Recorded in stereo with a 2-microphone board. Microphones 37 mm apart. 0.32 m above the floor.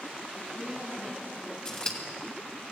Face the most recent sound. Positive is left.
turn(degrees=25)  # may be behind; listen again after turning